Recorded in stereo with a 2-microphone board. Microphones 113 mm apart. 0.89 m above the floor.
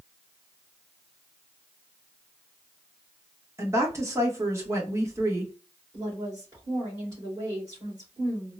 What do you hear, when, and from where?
3.6 s a woman speaking: 25° right (ahead or behind), 1.1 m
5.9 s a woman speaking: 35° right (ahead or behind), 2 m